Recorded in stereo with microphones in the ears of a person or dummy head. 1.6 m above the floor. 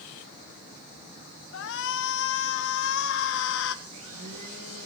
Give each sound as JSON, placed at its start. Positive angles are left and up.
{"t": 1.5, "sound": "a shout", "side_deg": 70, "distance_m": 1.9}
{"t": 3.9, "sound": "a blender", "side_deg": -85, "distance_m": 10.0}